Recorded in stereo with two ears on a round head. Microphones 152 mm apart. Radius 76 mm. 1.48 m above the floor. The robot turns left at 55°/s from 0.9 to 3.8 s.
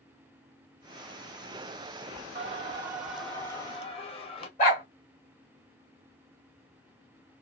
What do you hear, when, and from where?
2.4 s singing: 135° right, 1.1 m; by 4.5 s 145° left, 1.1 m
4.6 s a dog barking: 50° left (ahead or behind), 1.8 m